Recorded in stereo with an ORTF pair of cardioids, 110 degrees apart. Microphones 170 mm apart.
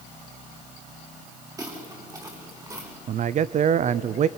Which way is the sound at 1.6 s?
20° right.